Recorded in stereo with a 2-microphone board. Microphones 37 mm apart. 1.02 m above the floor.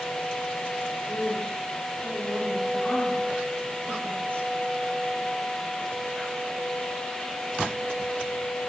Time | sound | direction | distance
1.1 | a woman speaking | 60° left (ahead or behind) | 8 m